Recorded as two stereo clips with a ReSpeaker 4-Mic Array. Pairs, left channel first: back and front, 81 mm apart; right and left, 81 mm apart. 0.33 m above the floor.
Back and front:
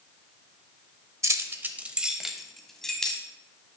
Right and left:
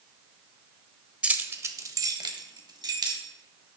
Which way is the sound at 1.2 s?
25° left.